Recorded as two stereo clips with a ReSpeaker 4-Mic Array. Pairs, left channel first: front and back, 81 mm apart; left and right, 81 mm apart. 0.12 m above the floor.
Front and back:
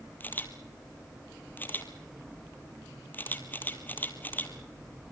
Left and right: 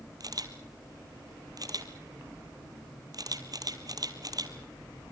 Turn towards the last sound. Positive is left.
turn(degrees=-65)